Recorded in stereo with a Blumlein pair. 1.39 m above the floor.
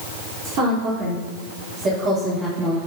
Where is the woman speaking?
35° right, 4 m; by 2.8 s 20° right, 2.5 m.